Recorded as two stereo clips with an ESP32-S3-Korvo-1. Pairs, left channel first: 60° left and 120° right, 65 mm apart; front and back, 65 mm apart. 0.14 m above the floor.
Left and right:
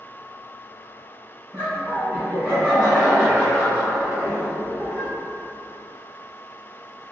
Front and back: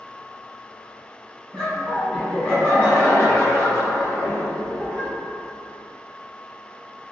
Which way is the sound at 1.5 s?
80° right.